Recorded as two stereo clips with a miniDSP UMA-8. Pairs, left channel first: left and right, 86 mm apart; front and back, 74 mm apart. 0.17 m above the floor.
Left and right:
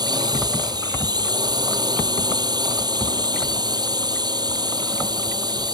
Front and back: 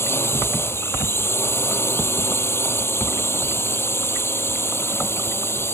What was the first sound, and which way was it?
A drone, 55° right.